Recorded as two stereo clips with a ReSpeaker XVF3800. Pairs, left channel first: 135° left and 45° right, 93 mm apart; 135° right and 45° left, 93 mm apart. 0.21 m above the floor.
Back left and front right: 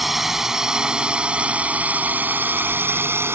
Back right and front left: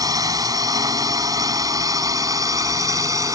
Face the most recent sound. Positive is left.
turn(degrees=10)